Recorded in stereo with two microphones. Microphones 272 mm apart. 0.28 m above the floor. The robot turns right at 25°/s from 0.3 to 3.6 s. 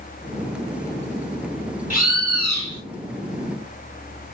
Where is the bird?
30° left (ahead or behind), 2 m; by 2.8 s 45° left (ahead or behind), 2 m.